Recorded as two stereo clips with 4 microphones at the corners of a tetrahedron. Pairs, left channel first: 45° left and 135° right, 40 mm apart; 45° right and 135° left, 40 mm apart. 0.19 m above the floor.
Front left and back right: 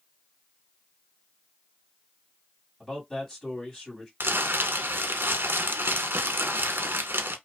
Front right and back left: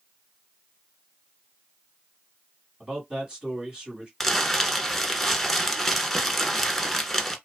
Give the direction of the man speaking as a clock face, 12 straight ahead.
8 o'clock.